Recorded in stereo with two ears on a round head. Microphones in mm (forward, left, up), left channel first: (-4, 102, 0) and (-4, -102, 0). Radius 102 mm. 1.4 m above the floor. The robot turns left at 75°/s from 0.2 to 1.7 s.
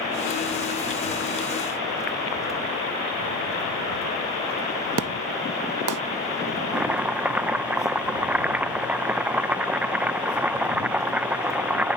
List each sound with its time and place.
5.0 s an explosion: 75° right (ahead or behind)
6.7 s chopping: 5° right (ahead or behind)